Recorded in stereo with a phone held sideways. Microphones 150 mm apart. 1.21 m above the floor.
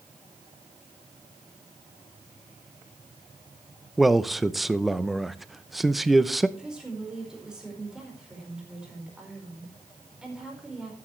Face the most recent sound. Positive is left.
turn(degrees=-5)  # may be behind; listen again after turning